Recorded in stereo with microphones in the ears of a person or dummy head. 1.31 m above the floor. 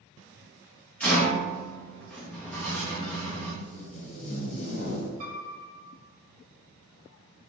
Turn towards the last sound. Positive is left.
turn(degrees=-55)  # may be behind; listen again after turning